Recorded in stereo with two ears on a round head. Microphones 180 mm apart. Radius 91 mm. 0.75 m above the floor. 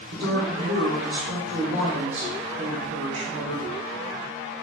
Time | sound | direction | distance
0.1 | a woman speaking | 70° right (ahead or behind) | 1.5 m